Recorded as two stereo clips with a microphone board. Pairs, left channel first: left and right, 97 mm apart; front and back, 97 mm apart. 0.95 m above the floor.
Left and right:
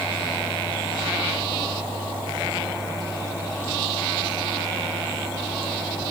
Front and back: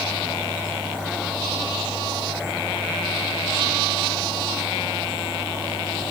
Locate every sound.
Only background noise.